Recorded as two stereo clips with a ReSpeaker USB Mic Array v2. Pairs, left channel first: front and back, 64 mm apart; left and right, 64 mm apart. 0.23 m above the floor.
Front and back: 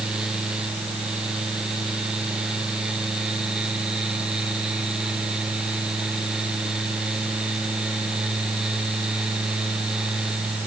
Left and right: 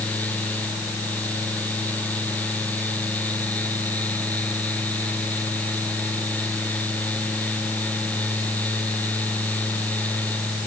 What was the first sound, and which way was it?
Only background noise.